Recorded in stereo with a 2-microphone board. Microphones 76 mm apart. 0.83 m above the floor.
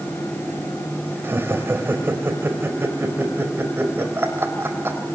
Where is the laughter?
30° right (ahead or behind), 4 m.